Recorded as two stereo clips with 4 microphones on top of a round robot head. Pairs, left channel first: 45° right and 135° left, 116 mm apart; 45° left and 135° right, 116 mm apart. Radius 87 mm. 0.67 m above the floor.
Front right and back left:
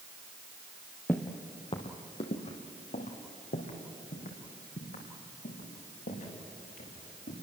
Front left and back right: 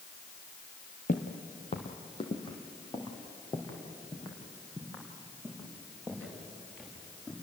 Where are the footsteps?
30° left, 1.5 m; by 7.3 s 35° right, 8 m.